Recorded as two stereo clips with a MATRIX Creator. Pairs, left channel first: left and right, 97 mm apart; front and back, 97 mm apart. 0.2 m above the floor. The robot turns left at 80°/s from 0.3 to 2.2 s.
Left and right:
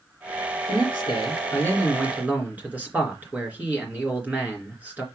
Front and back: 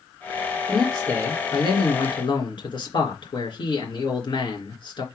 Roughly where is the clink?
I don't hear a clink.